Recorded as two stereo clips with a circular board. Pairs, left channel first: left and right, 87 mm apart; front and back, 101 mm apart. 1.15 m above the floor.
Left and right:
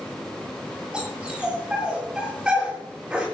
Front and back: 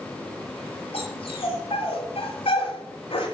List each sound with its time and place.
0.9 s a dog barking: 10° right, 7 m